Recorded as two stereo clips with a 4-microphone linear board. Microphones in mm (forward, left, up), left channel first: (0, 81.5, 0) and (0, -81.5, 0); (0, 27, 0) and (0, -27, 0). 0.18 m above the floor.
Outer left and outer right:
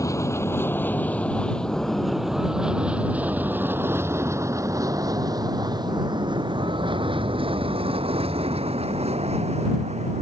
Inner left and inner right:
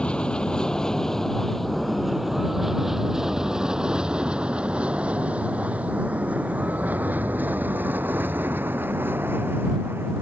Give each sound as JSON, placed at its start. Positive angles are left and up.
{"t": 0.0, "sound": "an aircraft", "side_deg": 20}